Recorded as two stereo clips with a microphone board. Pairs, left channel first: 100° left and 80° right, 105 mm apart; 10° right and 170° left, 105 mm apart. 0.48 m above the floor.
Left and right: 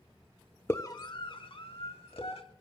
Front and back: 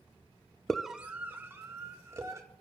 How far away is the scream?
About 0.7 m.